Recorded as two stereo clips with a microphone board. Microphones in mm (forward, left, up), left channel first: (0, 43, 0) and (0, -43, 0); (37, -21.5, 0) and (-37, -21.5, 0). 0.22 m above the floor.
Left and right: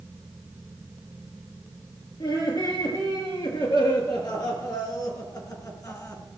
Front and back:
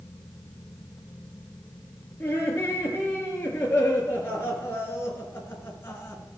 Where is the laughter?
65° left, 4.5 m; by 6.2 s 45° left, 2.5 m.